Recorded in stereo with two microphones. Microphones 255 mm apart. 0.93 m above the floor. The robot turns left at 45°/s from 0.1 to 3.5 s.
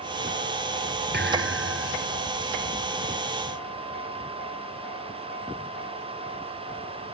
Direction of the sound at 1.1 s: 40° right.